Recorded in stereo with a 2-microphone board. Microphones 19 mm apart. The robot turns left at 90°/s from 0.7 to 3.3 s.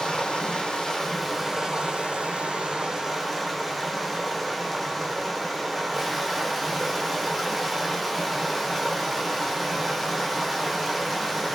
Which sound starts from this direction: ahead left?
Running water, at 0.0 s.